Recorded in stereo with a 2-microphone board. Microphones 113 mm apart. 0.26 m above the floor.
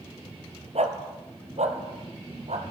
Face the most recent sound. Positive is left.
turn(degrees=-85)